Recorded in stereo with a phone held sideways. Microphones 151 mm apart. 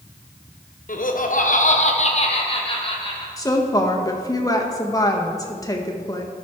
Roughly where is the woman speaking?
Left.